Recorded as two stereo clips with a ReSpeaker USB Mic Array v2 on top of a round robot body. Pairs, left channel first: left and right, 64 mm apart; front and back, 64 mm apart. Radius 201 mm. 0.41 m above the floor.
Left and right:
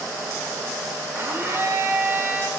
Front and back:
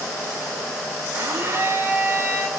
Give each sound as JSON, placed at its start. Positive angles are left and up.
{"t": 1.1, "sound": "a blender", "azimuth_deg": -135, "distance_m": 5.5}